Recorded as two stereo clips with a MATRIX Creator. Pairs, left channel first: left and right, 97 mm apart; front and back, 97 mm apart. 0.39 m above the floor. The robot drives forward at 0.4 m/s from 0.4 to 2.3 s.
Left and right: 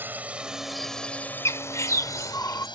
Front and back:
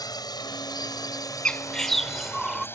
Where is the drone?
25° right; by 2.8 s 65° left.